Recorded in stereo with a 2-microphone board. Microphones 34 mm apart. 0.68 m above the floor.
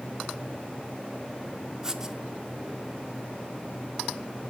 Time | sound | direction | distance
1.8 | writing | 15° right (ahead or behind) | 1.0 m